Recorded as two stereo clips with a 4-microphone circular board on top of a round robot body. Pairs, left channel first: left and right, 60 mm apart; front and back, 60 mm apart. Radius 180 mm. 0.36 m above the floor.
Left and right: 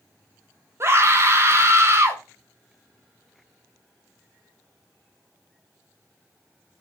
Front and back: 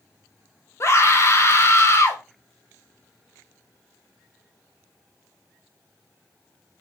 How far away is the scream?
About 2 m.